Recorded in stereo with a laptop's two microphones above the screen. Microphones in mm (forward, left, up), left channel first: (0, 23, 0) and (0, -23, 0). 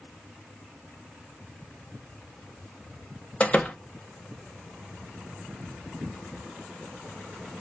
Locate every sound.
3.4 s a door slam: 25° left (ahead or behind), 0.7 m